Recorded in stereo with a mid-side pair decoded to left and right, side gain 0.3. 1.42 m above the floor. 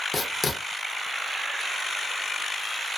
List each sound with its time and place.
0.1 s writing: 55° left, 0.7 m